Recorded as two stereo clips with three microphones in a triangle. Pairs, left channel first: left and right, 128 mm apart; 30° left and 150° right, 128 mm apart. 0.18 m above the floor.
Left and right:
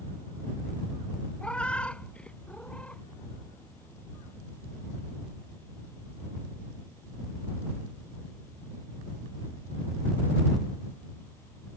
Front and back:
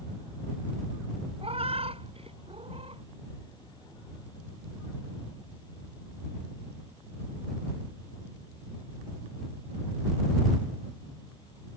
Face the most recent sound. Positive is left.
turn(degrees=170)